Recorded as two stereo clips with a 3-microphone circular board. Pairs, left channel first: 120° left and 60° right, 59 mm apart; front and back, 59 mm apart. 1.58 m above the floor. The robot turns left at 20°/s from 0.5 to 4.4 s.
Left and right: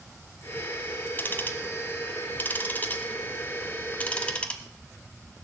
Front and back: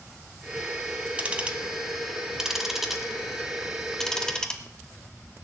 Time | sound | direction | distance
1.2 | ticking | 130° left | 1.6 m